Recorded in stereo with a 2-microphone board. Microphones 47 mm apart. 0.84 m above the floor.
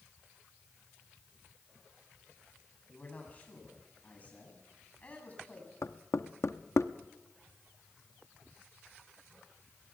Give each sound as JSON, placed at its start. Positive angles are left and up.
{"t": 2.9, "sound": "a man speaking", "side_deg": 30, "distance_m": 7.0}
{"t": 5.8, "sound": "knocking", "side_deg": 70, "distance_m": 0.8}